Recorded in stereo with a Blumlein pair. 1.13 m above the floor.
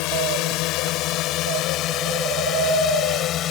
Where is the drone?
45° left; by 3.5 s 30° left.